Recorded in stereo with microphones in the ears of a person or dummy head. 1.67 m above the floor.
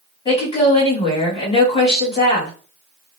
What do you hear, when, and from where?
0.2 s a woman speaking: 35° left (ahead or behind), 1.5 m